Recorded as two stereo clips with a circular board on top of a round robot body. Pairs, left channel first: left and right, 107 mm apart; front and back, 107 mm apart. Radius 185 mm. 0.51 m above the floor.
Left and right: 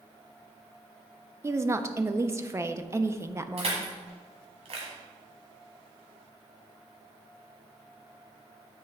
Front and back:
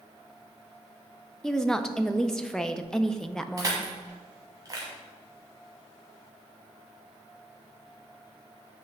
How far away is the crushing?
About 1.2 m.